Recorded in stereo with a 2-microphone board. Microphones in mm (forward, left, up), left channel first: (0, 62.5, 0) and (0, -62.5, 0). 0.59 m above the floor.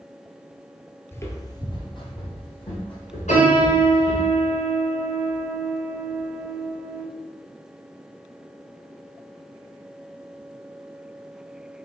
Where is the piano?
85° left, 1.8 m.